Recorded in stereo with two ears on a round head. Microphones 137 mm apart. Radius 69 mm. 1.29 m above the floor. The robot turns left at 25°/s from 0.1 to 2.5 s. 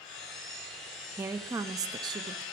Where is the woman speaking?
20° right, 0.6 m; by 2.4 s 50° right, 0.6 m.